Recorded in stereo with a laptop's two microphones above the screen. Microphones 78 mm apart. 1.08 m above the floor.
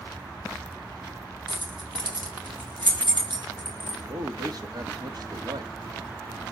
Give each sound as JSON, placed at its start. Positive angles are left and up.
{"t": 1.5, "sound": "keys jangling", "side_deg": -85, "distance_m": 3.5}
{"t": 4.1, "sound": "a man speaking", "side_deg": -55, "distance_m": 2.5}